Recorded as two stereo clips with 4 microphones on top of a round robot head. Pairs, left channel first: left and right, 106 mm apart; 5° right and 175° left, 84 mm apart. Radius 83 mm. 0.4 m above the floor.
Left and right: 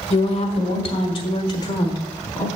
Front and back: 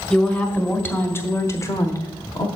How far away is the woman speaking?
About 1.8 m.